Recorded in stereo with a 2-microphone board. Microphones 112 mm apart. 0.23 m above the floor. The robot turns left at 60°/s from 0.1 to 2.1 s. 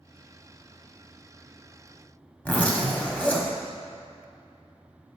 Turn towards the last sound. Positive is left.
turn(degrees=15)  # may be behind; listen again after turning